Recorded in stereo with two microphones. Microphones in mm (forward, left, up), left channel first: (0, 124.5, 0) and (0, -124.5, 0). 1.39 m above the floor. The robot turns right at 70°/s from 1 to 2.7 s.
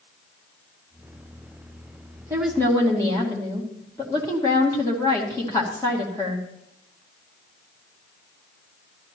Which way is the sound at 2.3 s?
15° right (ahead or behind).